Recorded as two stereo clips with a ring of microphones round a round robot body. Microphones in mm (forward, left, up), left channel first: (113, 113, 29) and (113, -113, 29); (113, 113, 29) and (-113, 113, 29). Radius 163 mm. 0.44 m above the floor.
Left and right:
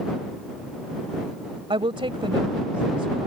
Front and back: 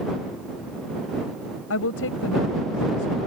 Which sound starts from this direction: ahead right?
A woman speaking, at 1.7 s.